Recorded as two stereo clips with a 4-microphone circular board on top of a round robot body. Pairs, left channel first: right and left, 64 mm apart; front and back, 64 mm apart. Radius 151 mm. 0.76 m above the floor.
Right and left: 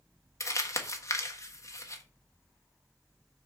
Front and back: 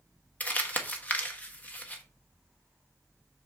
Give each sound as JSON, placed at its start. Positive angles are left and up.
{"t": 0.4, "sound": "crumpling", "azimuth_deg": -60, "distance_m": 1.4}